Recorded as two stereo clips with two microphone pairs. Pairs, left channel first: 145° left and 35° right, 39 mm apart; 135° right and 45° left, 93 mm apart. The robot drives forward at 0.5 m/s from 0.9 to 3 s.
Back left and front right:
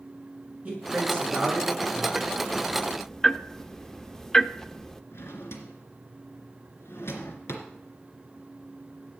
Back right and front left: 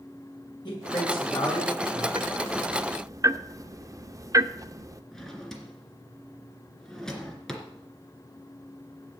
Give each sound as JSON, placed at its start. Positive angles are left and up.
{"t": 0.7, "sound": "a man speaking", "azimuth_deg": -95, "distance_m": 7.0}
{"t": 2.1, "sound": "ticking", "azimuth_deg": 35, "distance_m": 0.7}
{"t": 5.1, "sound": "a drawer", "azimuth_deg": 140, "distance_m": 2.5}